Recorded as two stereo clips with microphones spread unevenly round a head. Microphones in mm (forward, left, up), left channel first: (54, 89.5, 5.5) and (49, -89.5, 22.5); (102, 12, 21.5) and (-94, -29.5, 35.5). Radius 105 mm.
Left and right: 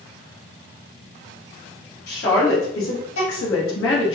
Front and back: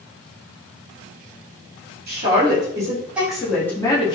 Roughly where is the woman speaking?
Behind left.